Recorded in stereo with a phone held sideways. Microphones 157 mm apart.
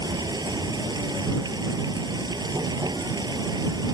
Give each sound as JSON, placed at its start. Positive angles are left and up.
{"t": 0.0, "sound": "running water", "side_deg": -25}